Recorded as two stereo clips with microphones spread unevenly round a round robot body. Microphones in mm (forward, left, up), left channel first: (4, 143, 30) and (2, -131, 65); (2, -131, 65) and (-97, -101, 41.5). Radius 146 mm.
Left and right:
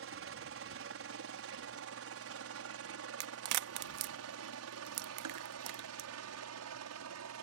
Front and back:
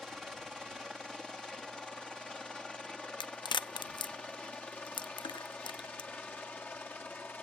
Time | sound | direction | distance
0.0 | a helicopter | 115° right | ?
3.2 | a crack | 70° right | ?